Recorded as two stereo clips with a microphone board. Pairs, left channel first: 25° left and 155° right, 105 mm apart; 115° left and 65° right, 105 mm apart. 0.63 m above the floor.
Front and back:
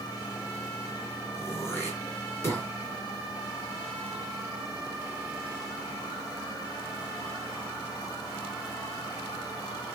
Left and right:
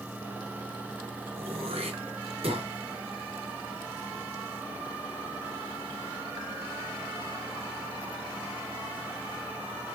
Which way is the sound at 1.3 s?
45° right.